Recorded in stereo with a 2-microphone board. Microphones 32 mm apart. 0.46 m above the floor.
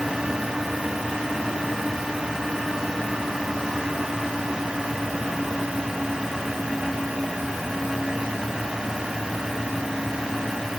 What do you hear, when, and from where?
Only background noise.